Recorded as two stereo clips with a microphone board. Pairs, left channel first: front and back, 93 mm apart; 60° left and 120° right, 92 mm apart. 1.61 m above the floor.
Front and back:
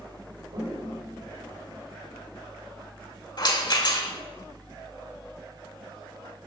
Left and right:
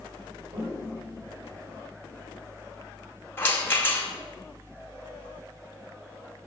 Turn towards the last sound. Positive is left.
turn(degrees=0)